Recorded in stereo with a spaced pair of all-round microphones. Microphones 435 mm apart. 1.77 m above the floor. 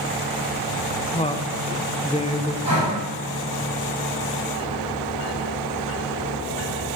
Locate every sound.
1.1 s a woman speaking: 15° left (ahead or behind), 0.7 m
2.6 s breathing: 50° left (ahead or behind), 6 m